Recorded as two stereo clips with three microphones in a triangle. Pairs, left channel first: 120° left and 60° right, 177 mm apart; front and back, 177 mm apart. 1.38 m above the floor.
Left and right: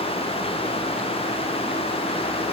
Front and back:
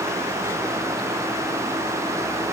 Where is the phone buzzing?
I don't hear a phone buzzing.